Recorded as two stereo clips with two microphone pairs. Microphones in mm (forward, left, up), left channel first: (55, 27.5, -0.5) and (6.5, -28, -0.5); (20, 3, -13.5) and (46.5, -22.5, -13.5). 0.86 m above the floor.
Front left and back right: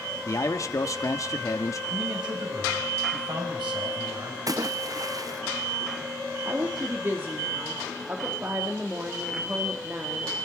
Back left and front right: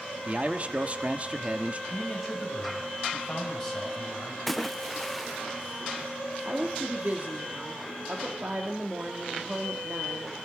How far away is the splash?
About 0.5 m.